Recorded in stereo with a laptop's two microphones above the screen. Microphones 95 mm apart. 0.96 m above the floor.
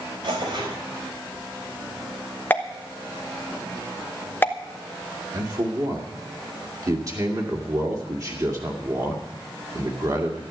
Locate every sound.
0.2 s tearing paper: 60° right (ahead or behind), 4.5 m
2.5 s a pop: 20° left (ahead or behind), 1.2 m
5.3 s a man speaking: 40° right (ahead or behind), 2 m